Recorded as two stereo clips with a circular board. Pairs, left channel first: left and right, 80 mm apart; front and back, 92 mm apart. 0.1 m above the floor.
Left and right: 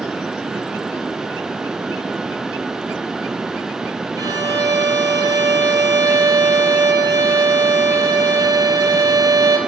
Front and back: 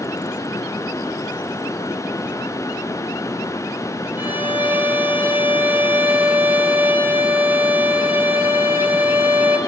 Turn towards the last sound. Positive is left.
turn(degrees=-115)